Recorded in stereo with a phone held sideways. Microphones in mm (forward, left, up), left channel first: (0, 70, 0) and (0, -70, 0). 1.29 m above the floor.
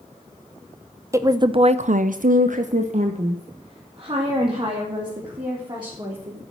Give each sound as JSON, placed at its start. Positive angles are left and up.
{"t": 1.1, "sound": "a woman speaking", "side_deg": -20, "distance_m": 0.9}